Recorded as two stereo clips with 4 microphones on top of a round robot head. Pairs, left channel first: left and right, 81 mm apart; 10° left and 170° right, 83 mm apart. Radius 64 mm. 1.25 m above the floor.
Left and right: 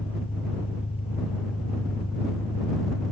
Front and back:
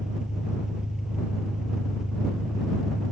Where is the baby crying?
No baby crying in this recording.